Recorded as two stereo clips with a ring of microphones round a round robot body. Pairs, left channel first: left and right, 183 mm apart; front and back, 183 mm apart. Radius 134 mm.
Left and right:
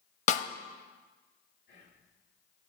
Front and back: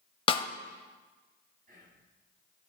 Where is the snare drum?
55° left, 0.5 m.